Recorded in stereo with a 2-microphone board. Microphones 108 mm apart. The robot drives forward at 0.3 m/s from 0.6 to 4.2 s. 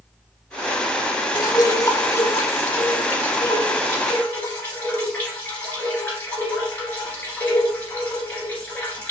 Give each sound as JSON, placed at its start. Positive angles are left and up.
{"t": 1.4, "sound": "dripping", "side_deg": 35, "distance_m": 0.6}